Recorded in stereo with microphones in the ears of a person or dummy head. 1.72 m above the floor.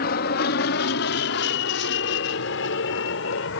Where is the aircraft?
55° left (ahead or behind); by 3.6 s 70° left (ahead or behind).